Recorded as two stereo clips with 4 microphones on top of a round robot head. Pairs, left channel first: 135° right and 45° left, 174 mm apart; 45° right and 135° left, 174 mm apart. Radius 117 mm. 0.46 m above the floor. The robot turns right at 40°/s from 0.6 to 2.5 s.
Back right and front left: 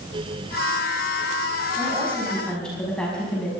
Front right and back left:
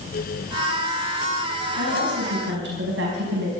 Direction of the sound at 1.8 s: 110° left.